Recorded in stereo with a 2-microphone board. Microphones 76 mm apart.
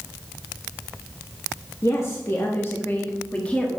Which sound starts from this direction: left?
A woman speaking, at 1.8 s.